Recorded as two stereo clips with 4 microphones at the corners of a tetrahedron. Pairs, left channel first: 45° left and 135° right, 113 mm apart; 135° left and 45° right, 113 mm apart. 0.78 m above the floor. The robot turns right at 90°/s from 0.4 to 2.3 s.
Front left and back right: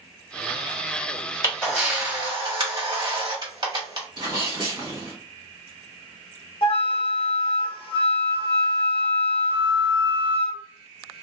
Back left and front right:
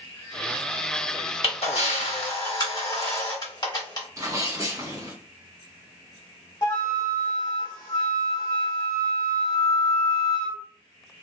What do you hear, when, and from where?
1.4 s a camera shutter: 105° left, 1.3 m; by 4.1 s 175° right, 1.3 m
4.2 s a sneeze: 100° right, 1.7 m
6.6 s a flute: 85° left, 1.0 m